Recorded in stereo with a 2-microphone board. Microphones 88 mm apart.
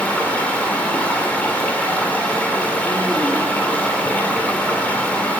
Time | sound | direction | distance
0.0 | running water | 15° left (ahead or behind) | 1.9 m